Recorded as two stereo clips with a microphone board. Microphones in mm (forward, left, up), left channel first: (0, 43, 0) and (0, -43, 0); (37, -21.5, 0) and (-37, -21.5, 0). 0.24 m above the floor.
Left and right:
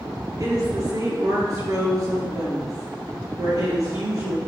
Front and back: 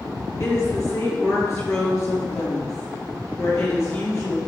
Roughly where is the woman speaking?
Ahead right.